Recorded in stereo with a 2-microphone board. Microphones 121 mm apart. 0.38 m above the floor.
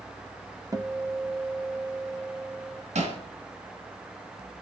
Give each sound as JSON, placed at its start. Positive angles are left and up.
{"t": 0.7, "sound": "a guitar", "side_deg": -30, "distance_m": 1.0}
{"t": 3.0, "sound": "hammering", "side_deg": -75, "distance_m": 4.0}